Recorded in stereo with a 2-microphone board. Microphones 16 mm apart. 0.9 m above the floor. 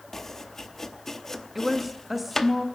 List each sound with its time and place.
0.1 s chopping: 25° left (ahead or behind), 0.8 m
1.6 s a woman speaking: 5° right (ahead or behind), 1.3 m